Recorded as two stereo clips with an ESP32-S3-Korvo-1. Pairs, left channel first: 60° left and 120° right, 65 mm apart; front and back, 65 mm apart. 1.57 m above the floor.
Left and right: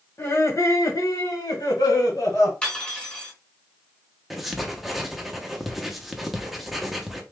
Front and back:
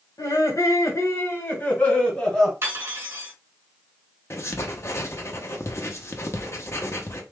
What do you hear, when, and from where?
0.2 s laughter: 15° left, 2 m; by 2.5 s 80° left, 3 m
2.6 s cutlery clinking: 135° left, 3 m
4.3 s writing: 30° right, 0.8 m